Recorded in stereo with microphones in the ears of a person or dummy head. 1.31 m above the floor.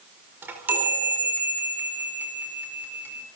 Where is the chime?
10° right (ahead or behind), 4.5 m.